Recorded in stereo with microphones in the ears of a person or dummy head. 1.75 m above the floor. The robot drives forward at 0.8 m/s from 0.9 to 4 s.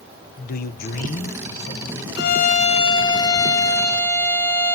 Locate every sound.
0.4 s a man speaking: 50° left (ahead or behind), 1.1 m; by 2.1 s 30° left (ahead or behind), 1.8 m
2.2 s a violin: 60° left (ahead or behind), 0.5 m; by 4.8 s 15° left (ahead or behind), 1.8 m